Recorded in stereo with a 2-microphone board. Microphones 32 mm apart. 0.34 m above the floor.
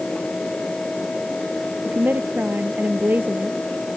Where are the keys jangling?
No keys jangling in this recording.